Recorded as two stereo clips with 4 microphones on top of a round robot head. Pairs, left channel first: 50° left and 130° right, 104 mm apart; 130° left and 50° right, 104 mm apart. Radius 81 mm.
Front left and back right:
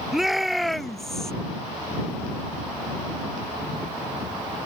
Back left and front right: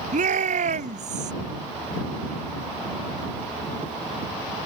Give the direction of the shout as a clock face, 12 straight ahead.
1 o'clock.